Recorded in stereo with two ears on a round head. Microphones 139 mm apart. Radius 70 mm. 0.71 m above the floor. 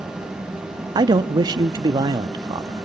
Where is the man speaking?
25° right (ahead or behind), 0.8 m.